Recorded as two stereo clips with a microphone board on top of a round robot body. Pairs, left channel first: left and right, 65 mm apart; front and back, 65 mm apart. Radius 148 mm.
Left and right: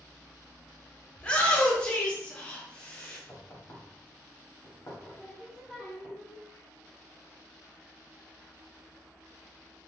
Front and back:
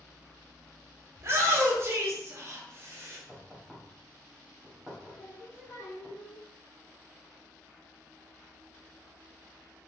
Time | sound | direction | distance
1.2 | a shout | 155° left | 1.3 m
3.3 | knocking | 110° left | 1.4 m
5.1 | singing | 5° right | 1.4 m